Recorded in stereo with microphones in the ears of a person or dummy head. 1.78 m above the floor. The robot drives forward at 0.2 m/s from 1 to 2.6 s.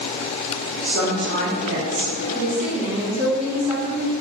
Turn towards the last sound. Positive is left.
turn(degrees=-35)  # may be behind; listen again after turning